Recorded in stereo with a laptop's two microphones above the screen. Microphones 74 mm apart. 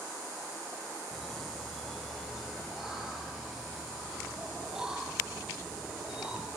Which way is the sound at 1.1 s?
5° left (ahead or behind).